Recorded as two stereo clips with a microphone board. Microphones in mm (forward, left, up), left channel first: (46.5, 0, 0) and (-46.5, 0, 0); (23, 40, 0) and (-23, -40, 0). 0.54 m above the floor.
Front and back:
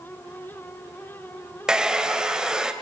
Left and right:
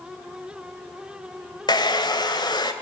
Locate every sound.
1.7 s a hair dryer: 100° left, 2 m